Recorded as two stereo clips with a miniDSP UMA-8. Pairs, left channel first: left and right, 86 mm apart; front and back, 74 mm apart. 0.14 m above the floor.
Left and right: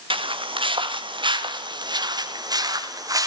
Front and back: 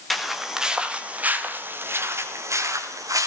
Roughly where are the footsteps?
Right.